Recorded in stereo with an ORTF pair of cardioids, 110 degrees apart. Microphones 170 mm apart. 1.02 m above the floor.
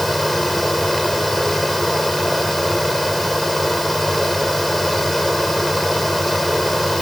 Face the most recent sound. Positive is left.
turn(degrees=0)